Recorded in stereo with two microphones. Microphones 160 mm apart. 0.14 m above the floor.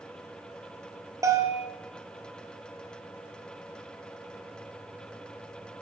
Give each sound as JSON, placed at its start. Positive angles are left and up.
{"t": 1.2, "sound": "a bell", "side_deg": -20, "distance_m": 1.9}